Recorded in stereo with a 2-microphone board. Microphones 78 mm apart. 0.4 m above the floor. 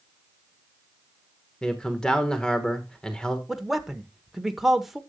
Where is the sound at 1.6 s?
10° left (ahead or behind), 1.2 m.